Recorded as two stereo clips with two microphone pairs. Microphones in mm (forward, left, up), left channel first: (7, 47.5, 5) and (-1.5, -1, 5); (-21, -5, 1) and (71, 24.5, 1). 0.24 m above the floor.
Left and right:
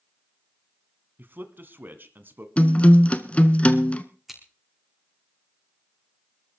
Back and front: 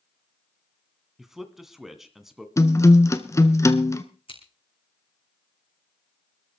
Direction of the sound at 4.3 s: 175° left.